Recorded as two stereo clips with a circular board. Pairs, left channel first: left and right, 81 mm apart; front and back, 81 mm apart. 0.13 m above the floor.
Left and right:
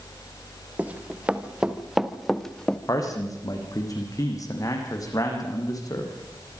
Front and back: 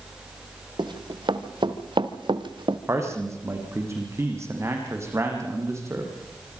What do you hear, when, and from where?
0.8 s running footsteps: 165° right, 2 m; by 2.8 s 170° left, 1.5 m
2.9 s a man speaking: 130° left, 6 m